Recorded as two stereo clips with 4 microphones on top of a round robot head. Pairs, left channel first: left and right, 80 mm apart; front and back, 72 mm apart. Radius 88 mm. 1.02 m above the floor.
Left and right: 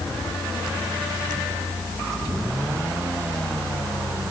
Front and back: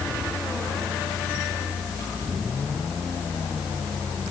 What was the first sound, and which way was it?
Only background noise.